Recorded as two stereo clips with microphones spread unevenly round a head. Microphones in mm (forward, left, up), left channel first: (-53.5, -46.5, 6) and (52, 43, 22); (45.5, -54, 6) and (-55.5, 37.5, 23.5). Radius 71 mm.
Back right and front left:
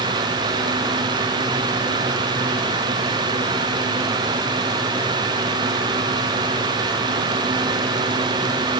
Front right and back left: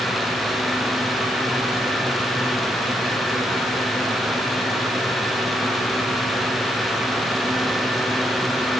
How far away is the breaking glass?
No breaking glass in this recording.